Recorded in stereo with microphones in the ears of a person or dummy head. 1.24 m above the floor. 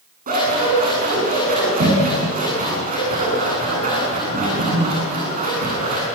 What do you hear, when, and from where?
0.3 s scissors: 40° right (ahead or behind), 9.5 m